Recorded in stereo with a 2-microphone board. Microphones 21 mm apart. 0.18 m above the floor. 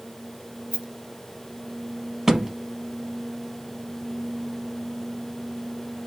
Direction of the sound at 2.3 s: 20° right (ahead or behind).